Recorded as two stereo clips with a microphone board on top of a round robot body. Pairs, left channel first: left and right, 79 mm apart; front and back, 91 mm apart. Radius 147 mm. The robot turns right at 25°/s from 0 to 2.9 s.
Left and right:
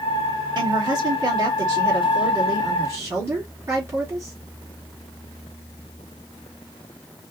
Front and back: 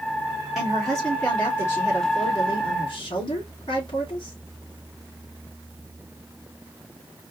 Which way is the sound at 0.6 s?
95° right.